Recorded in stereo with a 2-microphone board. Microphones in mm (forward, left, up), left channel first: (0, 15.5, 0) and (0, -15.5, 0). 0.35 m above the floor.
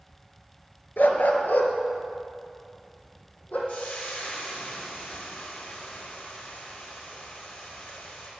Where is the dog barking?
70° left (ahead or behind), 1.2 m; by 3.6 s 50° left (ahead or behind), 3 m.